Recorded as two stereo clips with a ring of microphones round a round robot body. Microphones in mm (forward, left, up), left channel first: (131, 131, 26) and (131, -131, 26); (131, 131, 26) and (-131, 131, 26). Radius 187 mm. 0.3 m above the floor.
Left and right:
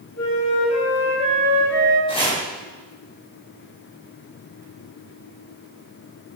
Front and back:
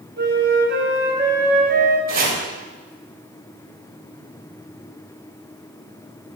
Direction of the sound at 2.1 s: 155° left.